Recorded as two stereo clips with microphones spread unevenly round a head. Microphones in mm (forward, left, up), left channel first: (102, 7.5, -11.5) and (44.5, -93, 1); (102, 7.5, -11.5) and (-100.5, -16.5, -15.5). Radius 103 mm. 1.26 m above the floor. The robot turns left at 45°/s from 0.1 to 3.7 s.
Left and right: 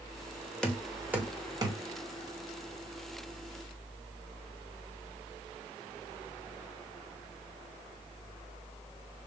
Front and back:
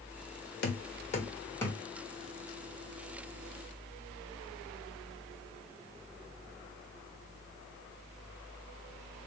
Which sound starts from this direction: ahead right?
Knocking, at 0.6 s.